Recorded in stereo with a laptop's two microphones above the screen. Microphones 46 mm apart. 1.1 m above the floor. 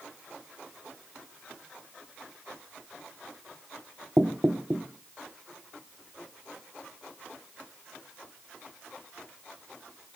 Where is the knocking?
40° right (ahead or behind), 1.2 m.